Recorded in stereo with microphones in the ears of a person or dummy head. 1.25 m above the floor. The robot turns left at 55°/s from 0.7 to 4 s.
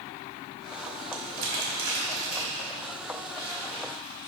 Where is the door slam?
I don't hear a door slam.